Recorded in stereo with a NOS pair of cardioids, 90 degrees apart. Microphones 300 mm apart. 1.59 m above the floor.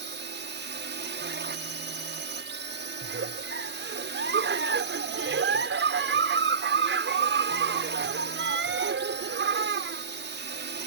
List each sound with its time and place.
0.0 s a drone: 35° right
3.0 s a giggle: 40° right